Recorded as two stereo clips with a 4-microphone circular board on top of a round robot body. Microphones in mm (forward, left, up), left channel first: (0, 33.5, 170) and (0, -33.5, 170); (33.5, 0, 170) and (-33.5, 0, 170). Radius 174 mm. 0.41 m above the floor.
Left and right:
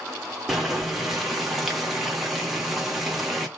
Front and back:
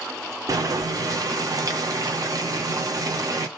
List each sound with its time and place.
0.5 s boiling: straight behind, 1.6 m